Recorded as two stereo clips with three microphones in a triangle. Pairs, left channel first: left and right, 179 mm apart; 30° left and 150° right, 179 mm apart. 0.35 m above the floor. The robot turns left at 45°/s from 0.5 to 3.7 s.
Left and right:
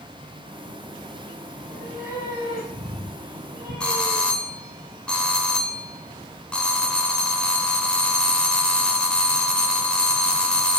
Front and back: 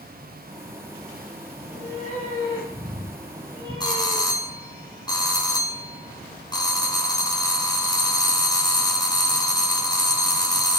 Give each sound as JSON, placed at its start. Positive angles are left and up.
{"t": 1.6, "sound": "a cat meowing", "azimuth_deg": 10, "distance_m": 4.5}
{"t": 3.8, "sound": "a doorbell", "azimuth_deg": 15, "distance_m": 1.6}